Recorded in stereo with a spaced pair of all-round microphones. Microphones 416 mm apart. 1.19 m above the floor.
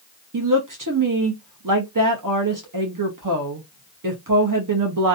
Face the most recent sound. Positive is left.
turn(degrees=-50)  # may be behind; listen again after turning